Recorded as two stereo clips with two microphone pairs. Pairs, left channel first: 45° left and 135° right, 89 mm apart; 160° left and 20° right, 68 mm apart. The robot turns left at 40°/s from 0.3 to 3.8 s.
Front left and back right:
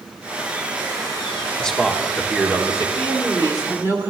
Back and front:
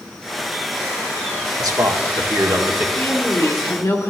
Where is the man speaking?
30° right, 1.3 m; by 2.9 s 80° right, 1.3 m.